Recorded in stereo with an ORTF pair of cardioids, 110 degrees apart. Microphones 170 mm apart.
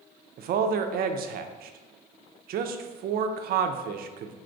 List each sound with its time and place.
0.4 s a man speaking: 65° right, 0.5 m